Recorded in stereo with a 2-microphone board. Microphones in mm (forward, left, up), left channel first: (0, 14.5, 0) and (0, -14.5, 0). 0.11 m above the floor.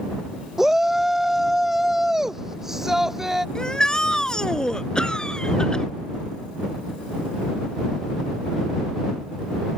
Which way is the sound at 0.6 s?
10° right (ahead or behind).